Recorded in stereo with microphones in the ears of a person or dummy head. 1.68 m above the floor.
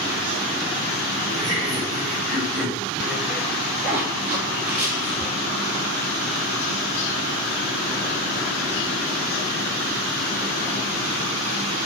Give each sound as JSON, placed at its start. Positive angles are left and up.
{"t": 1.3, "sound": "laughter", "side_deg": 0, "distance_m": 2.5}
{"t": 3.8, "sound": "a zipper", "side_deg": -5, "distance_m": 1.3}